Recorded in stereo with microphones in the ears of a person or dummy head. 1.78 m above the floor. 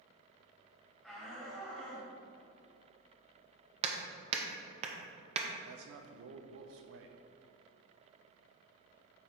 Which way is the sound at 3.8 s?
40° right (ahead or behind).